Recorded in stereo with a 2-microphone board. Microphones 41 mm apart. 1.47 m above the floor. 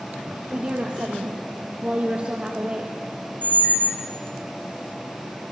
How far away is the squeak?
About 1.9 m.